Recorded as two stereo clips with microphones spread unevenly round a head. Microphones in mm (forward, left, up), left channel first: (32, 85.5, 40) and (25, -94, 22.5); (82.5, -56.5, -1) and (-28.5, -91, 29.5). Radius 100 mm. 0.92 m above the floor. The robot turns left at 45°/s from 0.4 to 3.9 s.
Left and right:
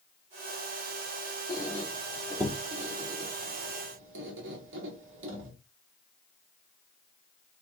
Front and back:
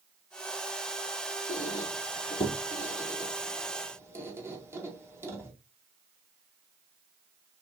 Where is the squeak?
15° left, 2.0 m; by 5.5 s 90° right, 2.0 m.